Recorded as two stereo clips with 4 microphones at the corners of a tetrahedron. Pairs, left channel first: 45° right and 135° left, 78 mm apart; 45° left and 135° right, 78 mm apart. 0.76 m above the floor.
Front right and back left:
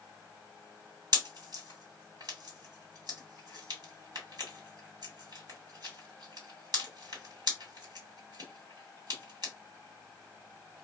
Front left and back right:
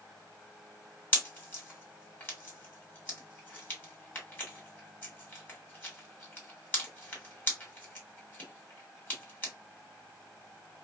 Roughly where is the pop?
Left.